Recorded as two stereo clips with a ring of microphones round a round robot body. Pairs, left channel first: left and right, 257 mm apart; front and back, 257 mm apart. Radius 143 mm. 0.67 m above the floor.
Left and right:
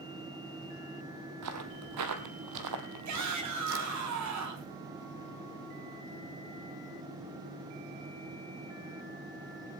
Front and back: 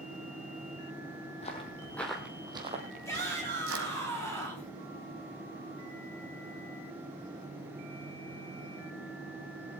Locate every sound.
1.4 s footsteps: 70° right, 1.8 m; by 4.0 s 140° right, 2.5 m
3.0 s a shout: 80° right, 5 m